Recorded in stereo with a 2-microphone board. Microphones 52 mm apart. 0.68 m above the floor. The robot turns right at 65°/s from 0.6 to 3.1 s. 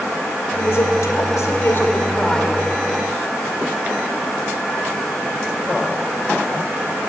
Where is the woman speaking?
55° left, 2.0 m; by 2.6 s straight behind, 2.0 m.